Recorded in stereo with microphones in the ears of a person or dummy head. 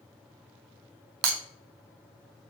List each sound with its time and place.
1.2 s breaking glass: 55° right (ahead or behind), 0.5 m